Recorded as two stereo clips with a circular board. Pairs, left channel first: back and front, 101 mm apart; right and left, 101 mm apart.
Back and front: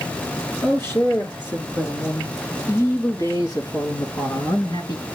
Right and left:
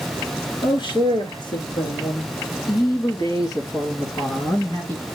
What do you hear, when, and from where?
0.6 s a man speaking: 115° right, 4.5 m; by 5.0 s 150° right, 2.5 m